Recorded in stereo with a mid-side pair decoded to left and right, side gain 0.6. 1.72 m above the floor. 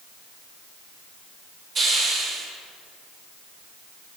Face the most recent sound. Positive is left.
turn(degrees=-35)